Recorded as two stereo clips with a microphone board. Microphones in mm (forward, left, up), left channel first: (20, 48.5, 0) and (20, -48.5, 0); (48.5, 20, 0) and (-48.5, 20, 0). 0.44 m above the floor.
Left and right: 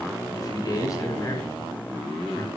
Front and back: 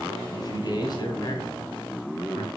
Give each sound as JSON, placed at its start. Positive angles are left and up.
{"t": 0.3, "sound": "a man speaking", "azimuth_deg": 40, "distance_m": 3.0}